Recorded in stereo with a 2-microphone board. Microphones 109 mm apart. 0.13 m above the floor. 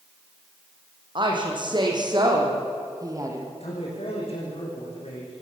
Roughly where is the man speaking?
Left.